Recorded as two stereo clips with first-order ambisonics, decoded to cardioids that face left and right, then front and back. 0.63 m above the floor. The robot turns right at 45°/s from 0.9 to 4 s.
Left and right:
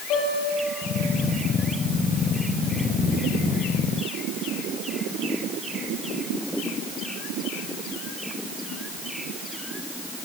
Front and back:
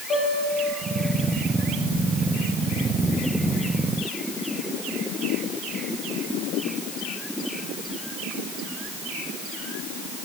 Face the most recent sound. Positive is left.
turn(degrees=-165)